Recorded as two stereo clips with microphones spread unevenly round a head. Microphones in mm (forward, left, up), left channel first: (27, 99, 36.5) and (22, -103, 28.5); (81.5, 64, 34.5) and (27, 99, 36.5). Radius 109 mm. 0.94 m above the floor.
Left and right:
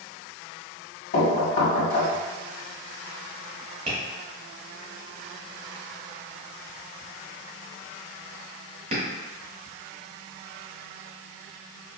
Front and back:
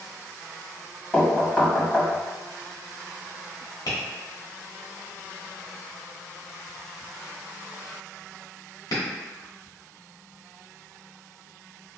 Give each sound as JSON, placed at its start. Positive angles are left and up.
{"t": 1.1, "sound": "knocking", "azimuth_deg": 45, "distance_m": 1.2}
{"t": 3.9, "sound": "tapping", "azimuth_deg": -35, "distance_m": 1.3}